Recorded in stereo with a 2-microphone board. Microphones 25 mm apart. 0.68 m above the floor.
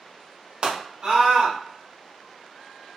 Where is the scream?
40° right (ahead or behind), 1.2 m.